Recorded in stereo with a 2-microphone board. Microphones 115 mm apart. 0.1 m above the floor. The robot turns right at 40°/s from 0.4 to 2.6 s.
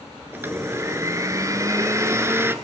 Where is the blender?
20° right (ahead or behind), 1.8 m.